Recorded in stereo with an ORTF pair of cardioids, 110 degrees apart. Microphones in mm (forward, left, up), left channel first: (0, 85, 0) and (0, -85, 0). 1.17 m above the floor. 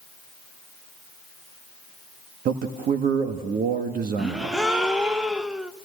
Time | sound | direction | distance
2.5 | a man speaking | 60° right | 1.5 m
4.2 | a gasp | 5° right | 0.9 m